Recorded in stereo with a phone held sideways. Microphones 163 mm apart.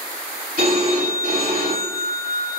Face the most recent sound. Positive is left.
turn(degrees=-70)  # may be behind; listen again after turning